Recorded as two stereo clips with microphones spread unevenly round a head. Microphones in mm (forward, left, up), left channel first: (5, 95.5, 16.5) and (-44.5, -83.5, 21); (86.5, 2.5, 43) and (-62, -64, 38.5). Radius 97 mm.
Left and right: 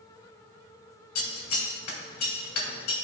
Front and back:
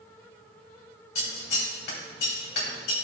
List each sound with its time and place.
1.1 s scissors: 65° left, 2.5 m